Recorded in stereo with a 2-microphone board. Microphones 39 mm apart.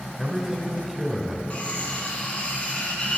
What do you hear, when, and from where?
0.2 s a man speaking: 10° right (ahead or behind), 1.2 m
1.5 s cutlery clinking: 30° left (ahead or behind), 2.5 m